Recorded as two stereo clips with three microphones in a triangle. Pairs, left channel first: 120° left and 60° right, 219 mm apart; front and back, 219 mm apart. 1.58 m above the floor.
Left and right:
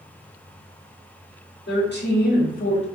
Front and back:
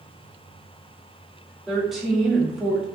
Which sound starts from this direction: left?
A woman speaking, at 1.7 s.